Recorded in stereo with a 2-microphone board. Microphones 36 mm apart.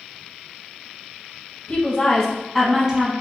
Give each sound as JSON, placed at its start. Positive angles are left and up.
{"t": 1.7, "sound": "a woman speaking", "side_deg": 40, "distance_m": 1.5}